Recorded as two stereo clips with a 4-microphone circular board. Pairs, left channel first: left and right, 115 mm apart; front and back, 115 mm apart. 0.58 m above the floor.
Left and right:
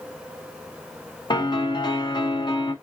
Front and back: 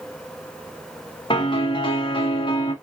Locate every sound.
1.3 s a piano: 45° left, 0.9 m